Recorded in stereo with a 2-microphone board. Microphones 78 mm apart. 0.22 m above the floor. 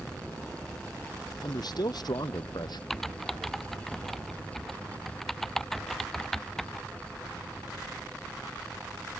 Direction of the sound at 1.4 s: 65° left (ahead or behind).